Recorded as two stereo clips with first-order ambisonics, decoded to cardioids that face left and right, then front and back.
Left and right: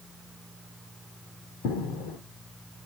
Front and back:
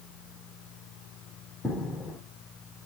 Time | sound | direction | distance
1.6 | footsteps | 85° left | 1.2 m